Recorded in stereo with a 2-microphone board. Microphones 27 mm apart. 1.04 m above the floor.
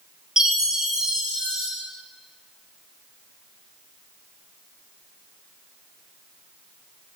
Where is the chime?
20° right (ahead or behind), 0.5 m.